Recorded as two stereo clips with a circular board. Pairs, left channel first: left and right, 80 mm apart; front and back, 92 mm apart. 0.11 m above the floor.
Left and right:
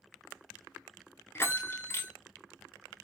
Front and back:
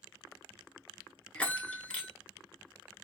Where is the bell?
65° left, 0.5 m.